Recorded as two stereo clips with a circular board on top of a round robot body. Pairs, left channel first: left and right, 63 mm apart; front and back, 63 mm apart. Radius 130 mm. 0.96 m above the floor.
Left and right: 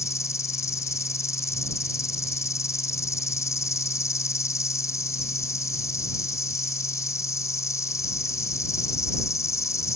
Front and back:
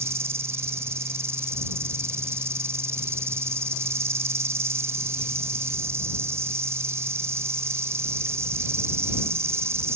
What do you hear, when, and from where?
0.0 s an insect: 130° left